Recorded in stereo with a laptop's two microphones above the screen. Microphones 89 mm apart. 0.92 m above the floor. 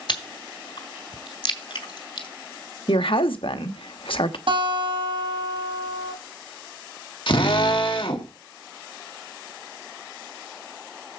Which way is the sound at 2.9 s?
75° left (ahead or behind).